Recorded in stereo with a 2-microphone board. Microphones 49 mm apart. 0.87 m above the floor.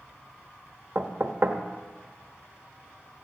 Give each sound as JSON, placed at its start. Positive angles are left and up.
{"t": 0.9, "sound": "knocking", "side_deg": -50, "distance_m": 1.1}